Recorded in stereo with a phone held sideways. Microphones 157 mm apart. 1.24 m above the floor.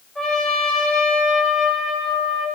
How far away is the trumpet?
About 4.5 m.